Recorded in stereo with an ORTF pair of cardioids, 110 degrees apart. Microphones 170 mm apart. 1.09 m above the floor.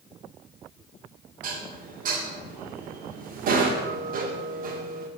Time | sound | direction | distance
1.4 | dishes clattering | 55° right | 2.0 m